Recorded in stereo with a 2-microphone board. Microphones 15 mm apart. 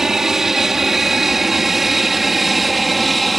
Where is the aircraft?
20° right (ahead or behind); by 3.4 s 5° left (ahead or behind).